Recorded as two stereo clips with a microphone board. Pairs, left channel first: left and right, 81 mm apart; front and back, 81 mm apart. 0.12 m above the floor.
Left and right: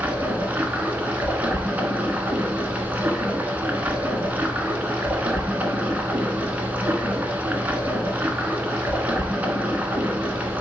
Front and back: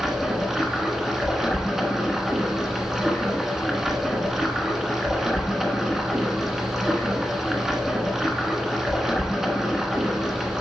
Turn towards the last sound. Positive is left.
turn(degrees=-105)